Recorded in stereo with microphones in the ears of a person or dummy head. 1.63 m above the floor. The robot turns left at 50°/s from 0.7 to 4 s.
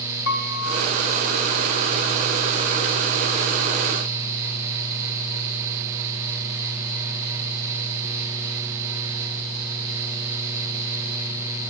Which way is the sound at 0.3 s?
45° left (ahead or behind).